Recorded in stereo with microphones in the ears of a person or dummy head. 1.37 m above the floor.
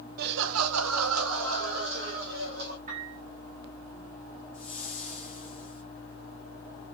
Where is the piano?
40° right (ahead or behind), 1.7 m.